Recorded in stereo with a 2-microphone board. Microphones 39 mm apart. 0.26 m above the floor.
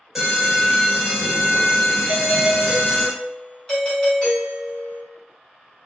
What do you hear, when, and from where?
0.1 s an alarm: 5° right (ahead or behind), 1.7 m
2.1 s a doorbell: 25° left (ahead or behind), 1.7 m